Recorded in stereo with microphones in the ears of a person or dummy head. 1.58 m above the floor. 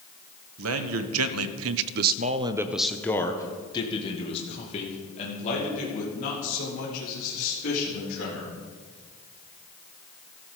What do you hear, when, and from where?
0.6 s a man speaking: 70° right (ahead or behind), 1.1 m; by 8.5 s 45° left (ahead or behind), 3.5 m